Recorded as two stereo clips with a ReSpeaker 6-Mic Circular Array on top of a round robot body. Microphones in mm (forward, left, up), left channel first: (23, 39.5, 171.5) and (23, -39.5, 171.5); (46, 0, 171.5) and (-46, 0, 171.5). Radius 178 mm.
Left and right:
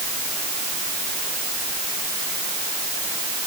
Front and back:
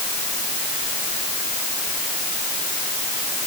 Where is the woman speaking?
I don't hear a woman speaking.